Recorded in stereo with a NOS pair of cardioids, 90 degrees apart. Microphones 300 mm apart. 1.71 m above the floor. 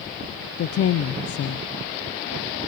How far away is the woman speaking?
About 0.8 m.